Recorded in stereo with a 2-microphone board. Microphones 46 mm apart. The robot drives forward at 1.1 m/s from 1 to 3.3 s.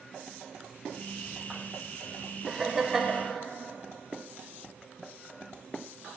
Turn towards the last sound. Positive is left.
turn(degrees=-5)  # may be behind; listen again after turning